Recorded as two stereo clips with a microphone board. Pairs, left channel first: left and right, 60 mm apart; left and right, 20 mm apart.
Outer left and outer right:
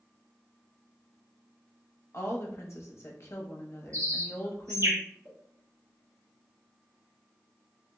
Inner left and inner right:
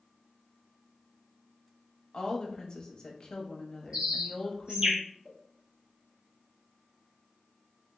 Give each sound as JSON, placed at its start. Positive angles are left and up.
{"t": 2.1, "sound": "a woman speaking", "side_deg": 50, "distance_m": 0.9}
{"t": 3.9, "sound": "a bird", "side_deg": -55, "distance_m": 0.9}
{"t": 5.2, "sound": "a pop", "side_deg": -50, "distance_m": 1.3}